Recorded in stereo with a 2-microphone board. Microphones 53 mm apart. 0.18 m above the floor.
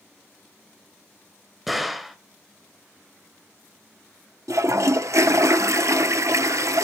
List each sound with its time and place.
1.7 s a gunshot: 5° right (ahead or behind), 1.0 m
4.5 s a toilet flushing: 80° right, 0.5 m